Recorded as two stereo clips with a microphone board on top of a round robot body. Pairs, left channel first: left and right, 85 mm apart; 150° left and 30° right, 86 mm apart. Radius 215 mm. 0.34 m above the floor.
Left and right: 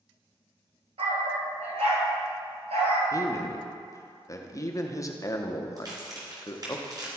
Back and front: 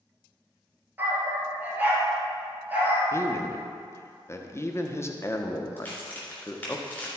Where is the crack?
135° right, 3 m.